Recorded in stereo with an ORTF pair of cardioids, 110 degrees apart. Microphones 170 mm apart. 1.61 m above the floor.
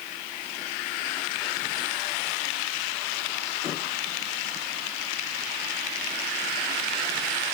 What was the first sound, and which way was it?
Only background noise.